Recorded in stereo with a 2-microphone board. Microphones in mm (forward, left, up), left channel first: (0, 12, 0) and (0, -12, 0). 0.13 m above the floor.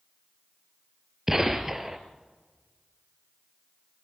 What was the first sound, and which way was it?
A gunshot, 15° right (ahead or behind).